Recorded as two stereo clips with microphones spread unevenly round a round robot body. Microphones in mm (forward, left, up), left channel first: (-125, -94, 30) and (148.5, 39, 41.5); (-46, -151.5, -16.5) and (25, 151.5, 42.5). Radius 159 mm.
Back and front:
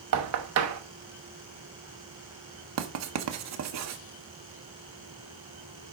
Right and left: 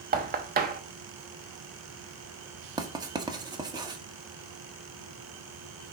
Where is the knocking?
10° left, 1.0 m.